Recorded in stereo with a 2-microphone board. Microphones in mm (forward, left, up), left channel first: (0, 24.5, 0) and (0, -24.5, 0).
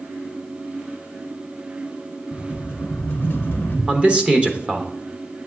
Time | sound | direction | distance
2.3 | a rattle | 45° left (ahead or behind) | 1.3 m
3.9 | a man speaking | 25° right (ahead or behind) | 0.9 m